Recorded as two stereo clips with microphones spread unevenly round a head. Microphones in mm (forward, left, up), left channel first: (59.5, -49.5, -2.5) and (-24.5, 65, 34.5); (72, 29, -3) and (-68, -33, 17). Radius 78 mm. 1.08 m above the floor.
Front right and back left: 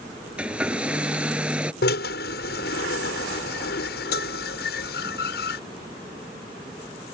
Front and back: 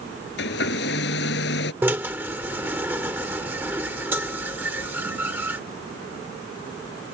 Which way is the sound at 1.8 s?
80° right.